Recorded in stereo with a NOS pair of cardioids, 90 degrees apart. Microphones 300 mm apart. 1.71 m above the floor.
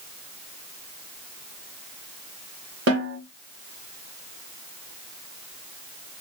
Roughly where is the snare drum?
Ahead right.